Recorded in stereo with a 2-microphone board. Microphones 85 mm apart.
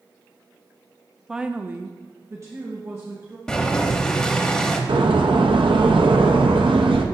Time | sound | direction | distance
1.3 | a woman speaking | 5° right (ahead or behind) | 0.5 m
3.5 | boiling | 10° left (ahead or behind) | 0.8 m
4.9 | a door slam | 85° right | 0.6 m